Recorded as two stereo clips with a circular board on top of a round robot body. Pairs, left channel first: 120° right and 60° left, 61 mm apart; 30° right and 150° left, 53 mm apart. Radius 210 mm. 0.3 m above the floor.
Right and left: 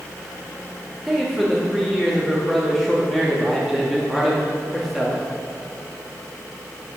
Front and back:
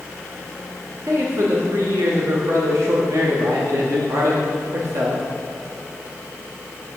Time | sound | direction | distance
1.1 | a man speaking | 150° left | 1.5 m